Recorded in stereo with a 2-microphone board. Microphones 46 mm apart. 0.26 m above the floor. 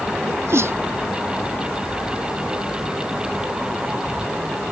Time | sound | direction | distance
0.3 | a sneeze | 65° right (ahead or behind) | ?